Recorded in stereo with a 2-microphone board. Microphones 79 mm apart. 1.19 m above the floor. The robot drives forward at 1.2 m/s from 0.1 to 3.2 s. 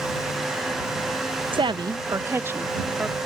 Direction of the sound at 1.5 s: 80° right.